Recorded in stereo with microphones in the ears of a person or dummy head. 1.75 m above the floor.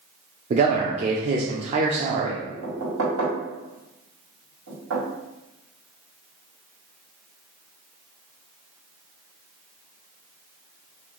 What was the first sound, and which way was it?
A man speaking, 35° right (ahead or behind).